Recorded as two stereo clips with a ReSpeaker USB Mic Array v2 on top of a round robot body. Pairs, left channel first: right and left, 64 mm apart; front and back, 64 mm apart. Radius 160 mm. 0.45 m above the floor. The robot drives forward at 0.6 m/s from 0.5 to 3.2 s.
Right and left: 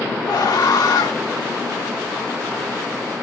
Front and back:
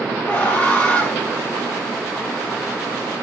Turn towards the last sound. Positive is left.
turn(degrees=-85)